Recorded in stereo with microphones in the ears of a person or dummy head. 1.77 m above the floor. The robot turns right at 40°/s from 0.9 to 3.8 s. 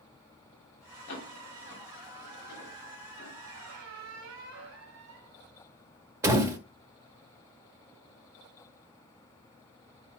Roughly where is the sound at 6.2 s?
Centre.